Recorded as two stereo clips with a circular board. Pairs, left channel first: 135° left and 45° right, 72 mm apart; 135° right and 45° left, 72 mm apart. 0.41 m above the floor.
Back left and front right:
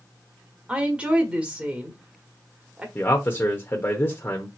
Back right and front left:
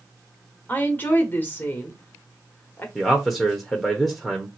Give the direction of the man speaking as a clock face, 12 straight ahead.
7 o'clock.